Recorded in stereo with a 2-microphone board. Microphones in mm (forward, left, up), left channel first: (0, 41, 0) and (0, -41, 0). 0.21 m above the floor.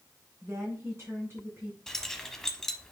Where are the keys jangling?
5° left (ahead or behind), 0.9 m.